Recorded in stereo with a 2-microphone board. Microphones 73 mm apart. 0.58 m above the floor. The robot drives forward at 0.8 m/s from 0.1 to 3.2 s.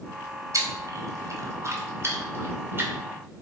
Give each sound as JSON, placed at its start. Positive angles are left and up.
{"t": 0.5, "sound": "chewing", "side_deg": -50, "distance_m": 1.6}